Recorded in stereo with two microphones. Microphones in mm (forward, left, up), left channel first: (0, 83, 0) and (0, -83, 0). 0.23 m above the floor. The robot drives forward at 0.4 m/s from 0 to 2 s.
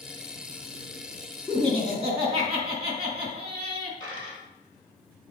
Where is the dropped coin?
30° right (ahead or behind), 2.5 m.